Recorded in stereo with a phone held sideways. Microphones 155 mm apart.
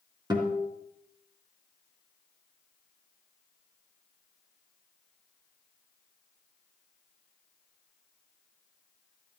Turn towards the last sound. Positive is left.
turn(degrees=-30)  # may be behind; listen again after turning